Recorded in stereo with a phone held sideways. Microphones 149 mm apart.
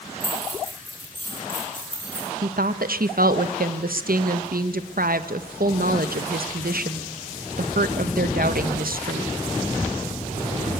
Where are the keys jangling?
60° left (ahead or behind), 8 m.